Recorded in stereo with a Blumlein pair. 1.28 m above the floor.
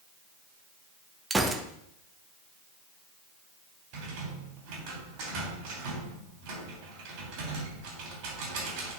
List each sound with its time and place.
1.3 s a gunshot: 10° right, 0.8 m
3.9 s a rattle: 45° right, 2.5 m